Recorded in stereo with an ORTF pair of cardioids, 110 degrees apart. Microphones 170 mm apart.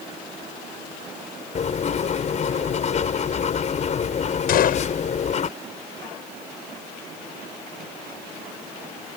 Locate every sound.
1.6 s writing: 45° left
4.5 s a gunshot: 60° left